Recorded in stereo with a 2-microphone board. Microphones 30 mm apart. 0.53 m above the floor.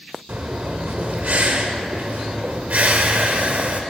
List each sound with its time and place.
0.3 s breathing: 65° right (ahead or behind), 0.8 m